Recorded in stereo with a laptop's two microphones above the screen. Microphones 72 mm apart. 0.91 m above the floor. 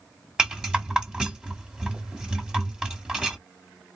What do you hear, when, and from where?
0.4 s a rattle: 10° right (ahead or behind), 1.6 m